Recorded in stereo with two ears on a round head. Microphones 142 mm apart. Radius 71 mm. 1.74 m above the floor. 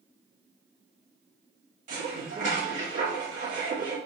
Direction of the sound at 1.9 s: 50° right (ahead or behind).